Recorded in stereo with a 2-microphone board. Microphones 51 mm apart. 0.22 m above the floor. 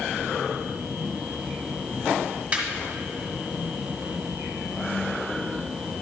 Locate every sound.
2.5 s laughter: 25° right (ahead or behind), 1.7 m